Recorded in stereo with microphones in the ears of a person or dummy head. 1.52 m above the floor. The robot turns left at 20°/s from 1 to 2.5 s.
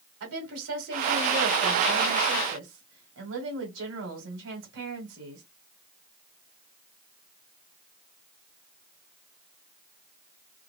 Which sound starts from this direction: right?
A woman speaking, at 0.2 s.